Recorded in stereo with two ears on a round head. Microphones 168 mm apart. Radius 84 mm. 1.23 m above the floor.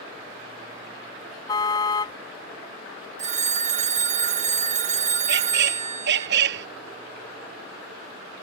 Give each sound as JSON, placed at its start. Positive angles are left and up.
{"t": 1.5, "sound": "a car horn", "side_deg": 20}
{"t": 3.2, "sound": "a phone ringing", "side_deg": -35}
{"t": 5.3, "sound": "a squeak", "side_deg": -60}